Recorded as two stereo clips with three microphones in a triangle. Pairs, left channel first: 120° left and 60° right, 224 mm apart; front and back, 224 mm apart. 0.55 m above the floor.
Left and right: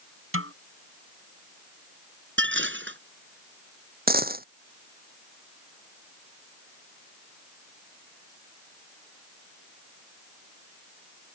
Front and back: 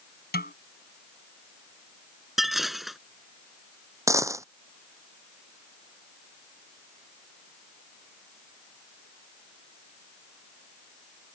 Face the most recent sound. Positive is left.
turn(degrees=-105)